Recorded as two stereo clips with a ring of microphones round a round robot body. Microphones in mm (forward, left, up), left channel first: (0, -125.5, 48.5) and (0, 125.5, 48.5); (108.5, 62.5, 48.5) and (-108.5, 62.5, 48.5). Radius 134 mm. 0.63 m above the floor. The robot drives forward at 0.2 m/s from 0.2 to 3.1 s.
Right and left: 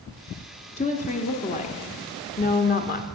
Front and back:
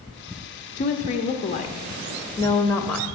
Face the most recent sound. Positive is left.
turn(degrees=-85)